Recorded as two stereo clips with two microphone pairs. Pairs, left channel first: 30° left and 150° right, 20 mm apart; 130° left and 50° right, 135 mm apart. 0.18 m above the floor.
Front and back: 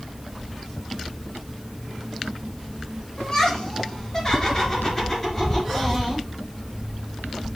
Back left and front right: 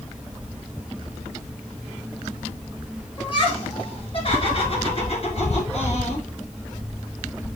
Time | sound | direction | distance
3.2 | laughter | 80° left | 4 m